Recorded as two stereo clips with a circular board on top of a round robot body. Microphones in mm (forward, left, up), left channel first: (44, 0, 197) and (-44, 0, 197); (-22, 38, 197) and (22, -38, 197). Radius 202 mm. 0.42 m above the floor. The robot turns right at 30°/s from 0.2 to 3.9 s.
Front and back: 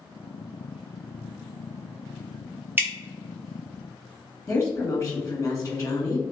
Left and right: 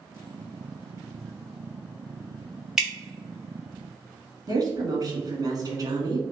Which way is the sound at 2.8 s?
140° right.